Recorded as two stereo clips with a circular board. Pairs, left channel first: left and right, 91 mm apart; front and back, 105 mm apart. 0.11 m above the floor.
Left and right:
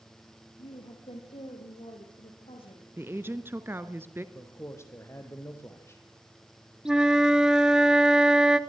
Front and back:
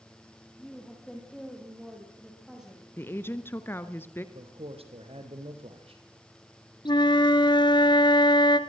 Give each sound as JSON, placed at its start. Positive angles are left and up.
{"t": 0.6, "sound": "a woman speaking", "azimuth_deg": 85, "distance_m": 4.0}
{"t": 3.0, "sound": "a woman speaking", "azimuth_deg": -50, "distance_m": 1.2}
{"t": 4.3, "sound": "a man speaking", "azimuth_deg": 155, "distance_m": 3.5}
{"t": 6.8, "sound": "a flute", "azimuth_deg": -10, "distance_m": 1.1}